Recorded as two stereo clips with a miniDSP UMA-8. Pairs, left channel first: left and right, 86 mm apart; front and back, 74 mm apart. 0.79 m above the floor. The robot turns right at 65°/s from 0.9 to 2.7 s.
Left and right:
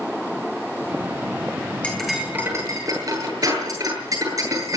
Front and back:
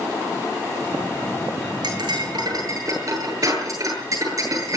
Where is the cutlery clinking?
165° left, 9.5 m; by 4.8 s 140° right, 9.5 m.